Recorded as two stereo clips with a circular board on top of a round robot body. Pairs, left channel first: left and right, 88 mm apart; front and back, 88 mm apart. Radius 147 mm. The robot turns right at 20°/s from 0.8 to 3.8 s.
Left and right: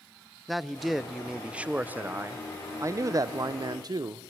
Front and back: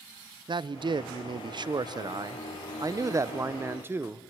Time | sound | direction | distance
0.5 | a man speaking | straight behind | 0.7 m